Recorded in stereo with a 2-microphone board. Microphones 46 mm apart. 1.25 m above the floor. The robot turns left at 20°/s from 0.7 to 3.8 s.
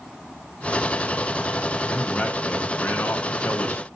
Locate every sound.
1.9 s a man speaking: 150° left, 0.8 m; by 3.9 s 110° left, 0.8 m